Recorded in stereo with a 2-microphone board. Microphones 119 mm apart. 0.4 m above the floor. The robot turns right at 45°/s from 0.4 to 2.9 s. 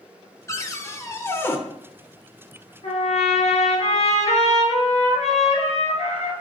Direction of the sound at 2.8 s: 70° left (ahead or behind).